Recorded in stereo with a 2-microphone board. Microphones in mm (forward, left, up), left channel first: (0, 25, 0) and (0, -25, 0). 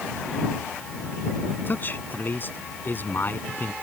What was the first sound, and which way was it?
A man speaking, 40° left (ahead or behind).